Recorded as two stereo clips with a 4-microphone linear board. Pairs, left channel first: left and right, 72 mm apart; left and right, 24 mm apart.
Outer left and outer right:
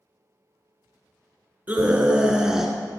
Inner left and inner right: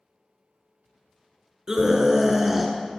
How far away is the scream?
About 1.7 m.